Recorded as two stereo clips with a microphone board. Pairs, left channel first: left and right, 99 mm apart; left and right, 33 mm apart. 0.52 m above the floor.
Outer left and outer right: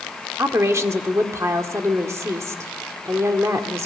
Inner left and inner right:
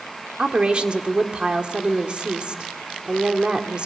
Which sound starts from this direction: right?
A woman speaking, at 0.4 s.